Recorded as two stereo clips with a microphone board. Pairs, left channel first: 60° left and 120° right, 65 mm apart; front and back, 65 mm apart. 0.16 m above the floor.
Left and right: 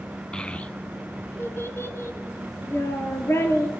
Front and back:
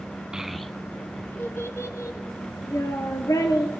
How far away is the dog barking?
No dog barking in this recording.